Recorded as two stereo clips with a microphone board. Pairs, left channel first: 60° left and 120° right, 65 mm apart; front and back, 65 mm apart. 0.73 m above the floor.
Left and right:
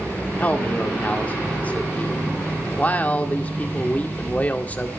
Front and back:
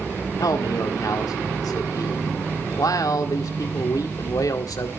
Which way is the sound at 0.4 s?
5° right.